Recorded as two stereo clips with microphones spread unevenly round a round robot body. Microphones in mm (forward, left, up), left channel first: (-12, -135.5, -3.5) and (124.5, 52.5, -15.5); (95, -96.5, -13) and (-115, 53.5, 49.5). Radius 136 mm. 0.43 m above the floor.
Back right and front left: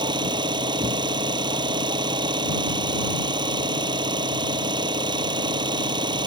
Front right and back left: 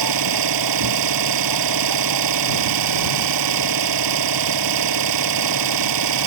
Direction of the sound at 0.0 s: 130° left.